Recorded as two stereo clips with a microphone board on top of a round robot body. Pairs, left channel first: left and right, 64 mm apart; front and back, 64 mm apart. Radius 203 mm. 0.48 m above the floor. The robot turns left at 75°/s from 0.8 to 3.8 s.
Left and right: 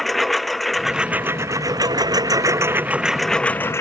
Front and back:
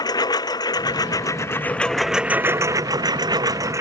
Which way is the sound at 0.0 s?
Straight ahead.